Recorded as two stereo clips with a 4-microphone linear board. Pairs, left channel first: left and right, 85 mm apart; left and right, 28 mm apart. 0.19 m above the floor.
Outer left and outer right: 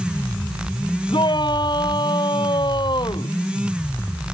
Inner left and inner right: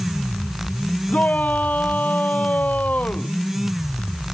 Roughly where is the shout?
Left.